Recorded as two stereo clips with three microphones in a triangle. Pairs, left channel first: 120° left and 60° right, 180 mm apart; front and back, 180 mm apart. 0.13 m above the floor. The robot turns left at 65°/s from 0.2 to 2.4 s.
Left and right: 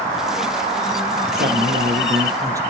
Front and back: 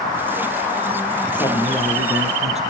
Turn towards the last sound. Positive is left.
turn(degrees=-130)